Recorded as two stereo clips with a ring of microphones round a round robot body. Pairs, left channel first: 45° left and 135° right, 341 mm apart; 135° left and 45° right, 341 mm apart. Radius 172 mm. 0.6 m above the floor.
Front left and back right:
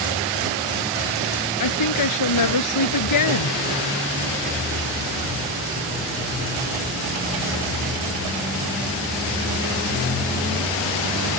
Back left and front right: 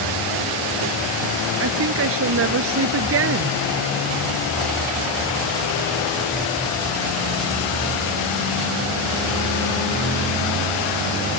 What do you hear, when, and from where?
1.6 s a woman speaking: 10° left